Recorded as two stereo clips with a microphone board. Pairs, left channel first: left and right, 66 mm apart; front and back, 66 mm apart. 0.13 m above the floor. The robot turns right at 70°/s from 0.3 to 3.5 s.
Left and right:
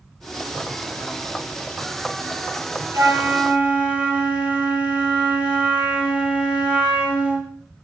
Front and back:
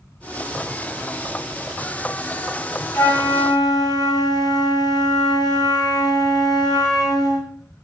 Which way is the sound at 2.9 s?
55° right.